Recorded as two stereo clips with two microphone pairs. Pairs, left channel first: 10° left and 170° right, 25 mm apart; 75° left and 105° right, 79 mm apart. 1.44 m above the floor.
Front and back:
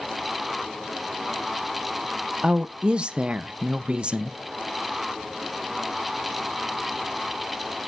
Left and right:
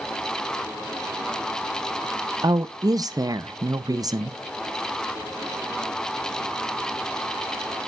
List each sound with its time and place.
2.4 s a woman speaking: 140° right, 0.6 m